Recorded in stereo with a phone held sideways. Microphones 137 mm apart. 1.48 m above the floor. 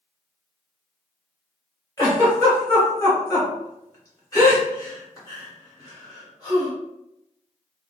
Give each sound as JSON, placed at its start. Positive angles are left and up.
{"t": 2.0, "sound": "a giggle", "side_deg": 25, "distance_m": 1.2}